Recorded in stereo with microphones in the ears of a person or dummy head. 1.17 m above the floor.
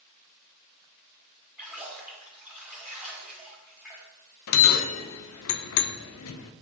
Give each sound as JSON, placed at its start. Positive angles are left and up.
{"t": 1.6, "sound": "a splash", "side_deg": -10, "distance_m": 1.2}
{"t": 4.5, "sound": "a bell", "side_deg": 70, "distance_m": 0.6}